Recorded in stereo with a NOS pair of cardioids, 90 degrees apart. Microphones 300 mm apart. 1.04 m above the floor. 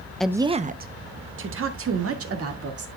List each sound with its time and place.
0.2 s a woman speaking: 5° left, 0.5 m; by 2.9 s 50° right, 2.5 m